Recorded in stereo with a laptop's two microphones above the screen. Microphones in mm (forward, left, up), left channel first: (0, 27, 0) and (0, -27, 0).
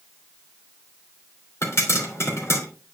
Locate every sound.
1.6 s a pop: 55° left (ahead or behind), 3 m